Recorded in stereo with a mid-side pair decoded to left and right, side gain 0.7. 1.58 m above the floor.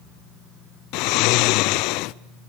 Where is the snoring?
65° left, 0.6 m.